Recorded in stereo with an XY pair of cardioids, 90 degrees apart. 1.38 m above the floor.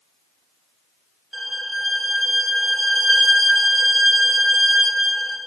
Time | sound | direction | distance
1.3 | a violin | 30° right | 1.6 m